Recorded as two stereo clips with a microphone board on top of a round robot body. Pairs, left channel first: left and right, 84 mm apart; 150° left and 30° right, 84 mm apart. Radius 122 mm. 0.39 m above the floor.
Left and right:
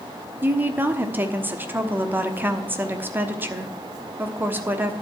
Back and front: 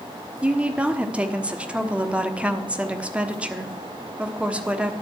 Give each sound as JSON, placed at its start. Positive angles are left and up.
{"t": 0.4, "sound": "a woman speaking", "azimuth_deg": -80, "distance_m": 1.4}